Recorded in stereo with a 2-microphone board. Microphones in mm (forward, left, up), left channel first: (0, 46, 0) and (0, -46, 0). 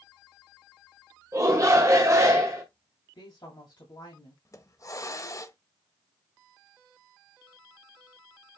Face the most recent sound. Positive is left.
turn(degrees=40)  # may be behind; listen again after turning